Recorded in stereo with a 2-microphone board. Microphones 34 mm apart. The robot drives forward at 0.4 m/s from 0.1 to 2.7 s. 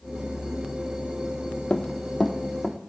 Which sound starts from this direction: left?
Running footsteps, at 1.7 s.